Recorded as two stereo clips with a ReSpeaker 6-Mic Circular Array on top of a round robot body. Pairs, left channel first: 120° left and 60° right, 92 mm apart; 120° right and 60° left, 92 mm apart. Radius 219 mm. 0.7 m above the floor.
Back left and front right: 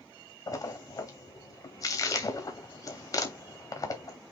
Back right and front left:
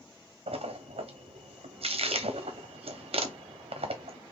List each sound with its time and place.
0.5 s a splash: 70° left, 0.9 m